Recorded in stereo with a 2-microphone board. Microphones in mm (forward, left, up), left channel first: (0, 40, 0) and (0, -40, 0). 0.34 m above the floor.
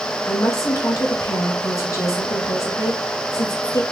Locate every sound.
0.2 s a woman speaking: 40° left (ahead or behind), 1.4 m